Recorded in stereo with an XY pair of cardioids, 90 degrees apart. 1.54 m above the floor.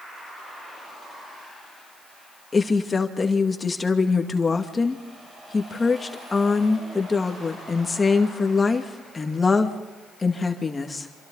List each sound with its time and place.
2.5 s a woman speaking: 30° left, 2 m